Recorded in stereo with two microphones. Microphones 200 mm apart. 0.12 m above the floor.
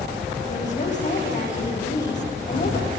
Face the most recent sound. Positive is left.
turn(degrees=40)  # may be behind; listen again after turning